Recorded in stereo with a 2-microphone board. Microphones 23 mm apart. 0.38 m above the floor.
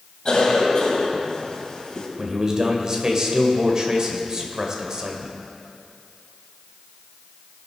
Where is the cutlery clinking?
I don't hear cutlery clinking.